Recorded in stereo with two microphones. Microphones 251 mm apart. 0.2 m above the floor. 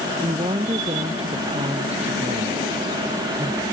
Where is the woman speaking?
25° right (ahead or behind).